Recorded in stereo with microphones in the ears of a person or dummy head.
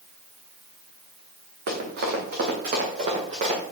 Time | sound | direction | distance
1.7 | running footsteps | 60° right (ahead or behind) | 4.5 m